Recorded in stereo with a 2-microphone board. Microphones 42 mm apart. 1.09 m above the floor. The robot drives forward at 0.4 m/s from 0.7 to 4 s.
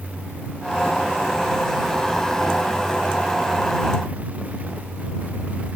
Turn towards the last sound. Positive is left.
No sound to turn to.